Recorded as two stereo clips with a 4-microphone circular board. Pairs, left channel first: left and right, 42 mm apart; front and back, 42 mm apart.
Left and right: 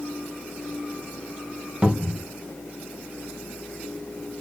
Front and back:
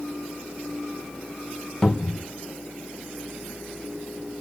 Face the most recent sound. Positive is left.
turn(degrees=-70)